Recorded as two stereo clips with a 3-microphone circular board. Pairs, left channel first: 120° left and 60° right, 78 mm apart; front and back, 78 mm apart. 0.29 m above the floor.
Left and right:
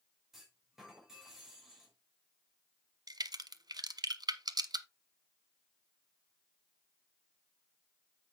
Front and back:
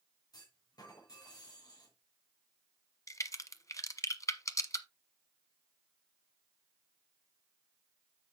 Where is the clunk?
25° left, 6 m.